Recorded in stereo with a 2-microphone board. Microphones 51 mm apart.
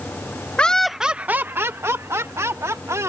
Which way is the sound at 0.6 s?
25° left (ahead or behind).